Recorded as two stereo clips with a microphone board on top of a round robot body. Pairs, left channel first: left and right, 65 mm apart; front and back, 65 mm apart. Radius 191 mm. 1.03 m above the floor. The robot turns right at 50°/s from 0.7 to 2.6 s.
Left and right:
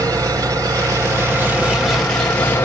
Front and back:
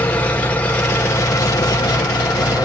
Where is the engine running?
70° right, 1.6 m; by 2.7 s 25° left, 1.6 m.